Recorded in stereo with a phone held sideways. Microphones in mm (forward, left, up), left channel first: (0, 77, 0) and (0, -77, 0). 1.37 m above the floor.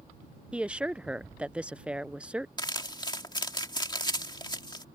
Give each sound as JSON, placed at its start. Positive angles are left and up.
{"t": 0.5, "sound": "a woman speaking", "side_deg": -5}
{"t": 2.6, "sound": "crumpling", "side_deg": 30}